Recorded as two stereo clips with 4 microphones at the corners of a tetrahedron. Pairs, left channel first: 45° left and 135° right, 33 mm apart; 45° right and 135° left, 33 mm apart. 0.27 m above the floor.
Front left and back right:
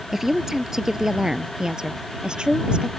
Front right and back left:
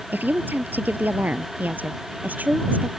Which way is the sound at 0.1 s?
145° left.